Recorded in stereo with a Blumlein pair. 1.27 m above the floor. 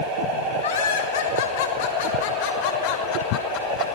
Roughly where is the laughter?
Ahead left.